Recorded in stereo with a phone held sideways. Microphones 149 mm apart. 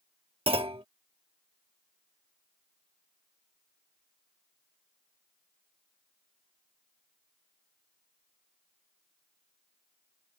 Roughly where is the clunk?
Right.